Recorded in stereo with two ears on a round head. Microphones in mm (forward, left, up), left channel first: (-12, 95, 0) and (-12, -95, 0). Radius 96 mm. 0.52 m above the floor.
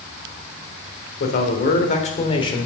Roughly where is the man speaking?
Left.